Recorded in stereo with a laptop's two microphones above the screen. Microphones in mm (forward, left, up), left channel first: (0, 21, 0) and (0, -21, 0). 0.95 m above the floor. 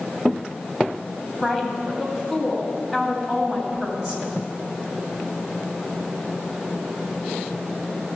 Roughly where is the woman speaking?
Right.